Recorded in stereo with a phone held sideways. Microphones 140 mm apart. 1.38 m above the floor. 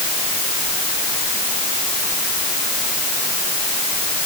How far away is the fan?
No fan in this recording.